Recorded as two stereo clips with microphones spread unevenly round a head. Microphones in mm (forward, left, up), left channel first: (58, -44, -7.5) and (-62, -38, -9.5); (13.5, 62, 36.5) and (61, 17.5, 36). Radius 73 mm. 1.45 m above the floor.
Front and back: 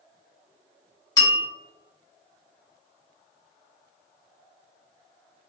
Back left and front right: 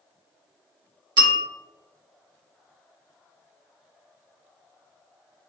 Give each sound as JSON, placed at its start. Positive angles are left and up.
{"t": 1.2, "sound": "a bell", "azimuth_deg": -60, "distance_m": 2.0}